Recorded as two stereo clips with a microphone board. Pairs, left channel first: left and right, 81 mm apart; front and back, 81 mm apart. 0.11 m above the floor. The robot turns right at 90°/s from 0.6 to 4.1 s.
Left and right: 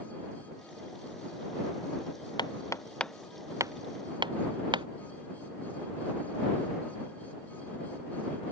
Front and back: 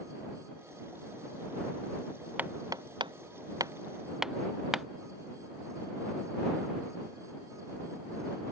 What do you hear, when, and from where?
2.4 s hammering: 110° left; by 4.9 s 95° right